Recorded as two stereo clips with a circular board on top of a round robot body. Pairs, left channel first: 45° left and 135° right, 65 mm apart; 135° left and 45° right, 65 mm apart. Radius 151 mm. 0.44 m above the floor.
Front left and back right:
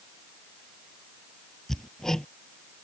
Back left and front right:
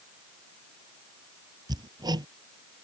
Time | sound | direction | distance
1.7 | hammering | 35° right | ?